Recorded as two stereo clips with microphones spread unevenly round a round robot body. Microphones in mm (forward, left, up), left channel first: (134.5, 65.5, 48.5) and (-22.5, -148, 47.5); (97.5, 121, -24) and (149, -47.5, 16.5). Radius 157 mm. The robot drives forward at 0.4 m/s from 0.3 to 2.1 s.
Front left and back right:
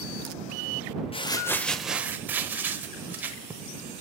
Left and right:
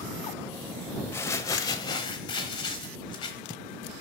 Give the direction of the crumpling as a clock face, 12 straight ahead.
9 o'clock.